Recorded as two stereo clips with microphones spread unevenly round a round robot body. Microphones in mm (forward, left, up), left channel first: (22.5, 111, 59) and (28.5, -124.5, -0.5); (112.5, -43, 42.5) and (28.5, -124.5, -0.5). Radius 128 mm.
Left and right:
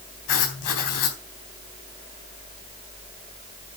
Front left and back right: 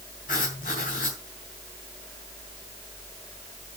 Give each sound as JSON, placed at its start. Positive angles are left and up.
{"t": 0.3, "sound": "writing", "azimuth_deg": 100, "distance_m": 4.0}